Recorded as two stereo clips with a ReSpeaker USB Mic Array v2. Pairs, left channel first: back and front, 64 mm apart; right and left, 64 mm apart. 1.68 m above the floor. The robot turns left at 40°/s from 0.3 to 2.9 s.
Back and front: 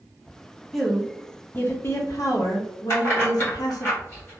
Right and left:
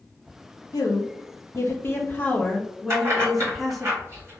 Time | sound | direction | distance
0.7 | a woman speaking | 95° right | 0.8 m
2.9 | keys jangling | 130° left | 1.5 m